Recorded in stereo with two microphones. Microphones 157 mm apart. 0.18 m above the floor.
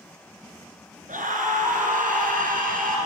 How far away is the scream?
About 2 m.